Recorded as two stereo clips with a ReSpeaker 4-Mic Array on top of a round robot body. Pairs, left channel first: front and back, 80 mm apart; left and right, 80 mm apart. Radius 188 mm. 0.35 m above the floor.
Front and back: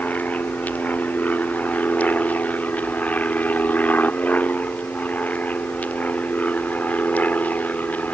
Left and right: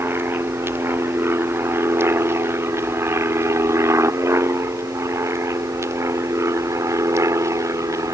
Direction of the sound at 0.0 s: 55° right.